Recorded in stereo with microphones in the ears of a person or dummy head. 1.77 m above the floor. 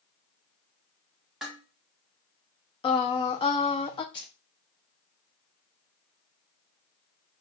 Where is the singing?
25° left (ahead or behind), 0.7 m.